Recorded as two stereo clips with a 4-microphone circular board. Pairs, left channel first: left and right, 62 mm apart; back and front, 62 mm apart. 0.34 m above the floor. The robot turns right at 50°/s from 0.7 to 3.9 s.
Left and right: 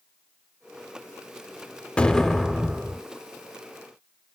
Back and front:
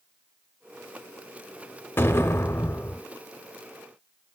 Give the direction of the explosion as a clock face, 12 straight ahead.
7 o'clock.